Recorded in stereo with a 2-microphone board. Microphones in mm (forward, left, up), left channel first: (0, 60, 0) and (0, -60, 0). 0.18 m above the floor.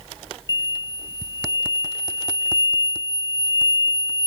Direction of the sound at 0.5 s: 30° right (ahead or behind).